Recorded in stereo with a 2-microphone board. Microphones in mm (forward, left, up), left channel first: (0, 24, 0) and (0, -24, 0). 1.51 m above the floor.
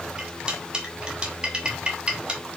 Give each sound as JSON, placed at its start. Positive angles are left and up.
{"t": 0.2, "sound": "cutlery clinking", "side_deg": -20, "distance_m": 1.8}